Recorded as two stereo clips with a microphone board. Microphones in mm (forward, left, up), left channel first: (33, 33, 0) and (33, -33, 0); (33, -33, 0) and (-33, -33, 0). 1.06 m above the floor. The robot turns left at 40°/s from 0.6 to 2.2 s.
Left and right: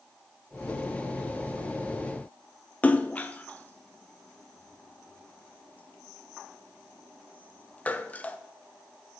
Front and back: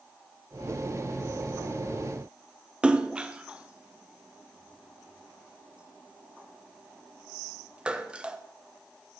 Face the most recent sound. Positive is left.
turn(degrees=125)